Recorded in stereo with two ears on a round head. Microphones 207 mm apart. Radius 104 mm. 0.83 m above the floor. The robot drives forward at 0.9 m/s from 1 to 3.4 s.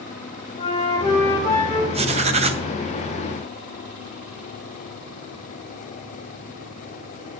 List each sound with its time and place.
0.6 s a flute: 20° left (ahead or behind), 1.9 m; by 1.8 s 15° left (ahead or behind), 2.5 m
1.9 s writing: 25° right (ahead or behind), 0.7 m